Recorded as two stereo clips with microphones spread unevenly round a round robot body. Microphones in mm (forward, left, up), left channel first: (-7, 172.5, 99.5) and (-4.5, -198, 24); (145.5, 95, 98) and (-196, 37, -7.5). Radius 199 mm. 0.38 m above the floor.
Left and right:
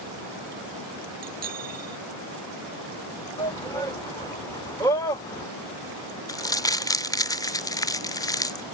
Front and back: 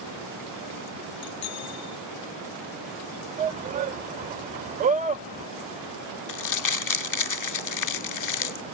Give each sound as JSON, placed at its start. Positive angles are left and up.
{"t": 1.2, "sound": "a bicycle bell", "azimuth_deg": -40}
{"t": 3.4, "sound": "a shout", "azimuth_deg": 180}
{"t": 6.3, "sound": "crumpling", "azimuth_deg": 0}